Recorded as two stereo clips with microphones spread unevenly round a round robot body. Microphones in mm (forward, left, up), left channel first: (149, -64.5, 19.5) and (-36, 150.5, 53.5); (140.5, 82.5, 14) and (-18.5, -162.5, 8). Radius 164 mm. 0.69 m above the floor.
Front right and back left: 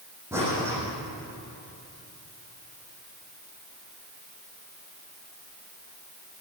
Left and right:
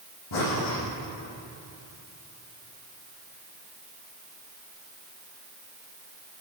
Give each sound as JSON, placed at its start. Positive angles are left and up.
{"t": 0.3, "sound": "breathing", "azimuth_deg": 50, "distance_m": 10.0}